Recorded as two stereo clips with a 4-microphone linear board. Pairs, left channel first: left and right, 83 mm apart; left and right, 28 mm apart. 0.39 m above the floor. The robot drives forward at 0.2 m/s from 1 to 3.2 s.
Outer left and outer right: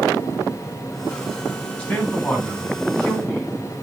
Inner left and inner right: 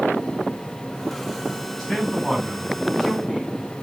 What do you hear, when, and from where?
1.8 s a man speaking: 15° left (ahead or behind), 4 m